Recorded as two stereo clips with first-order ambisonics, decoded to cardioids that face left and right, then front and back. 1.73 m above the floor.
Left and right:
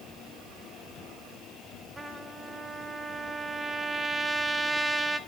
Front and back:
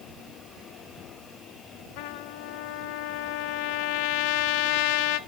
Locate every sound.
2.0 s a trumpet: 10° right, 0.6 m